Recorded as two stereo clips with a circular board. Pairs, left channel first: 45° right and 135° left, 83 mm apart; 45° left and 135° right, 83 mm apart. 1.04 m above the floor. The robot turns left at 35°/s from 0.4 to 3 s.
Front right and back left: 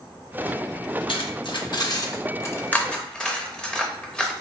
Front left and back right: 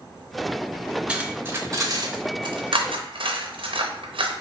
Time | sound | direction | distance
1.1 | cutlery clinking | 55° right | 0.6 m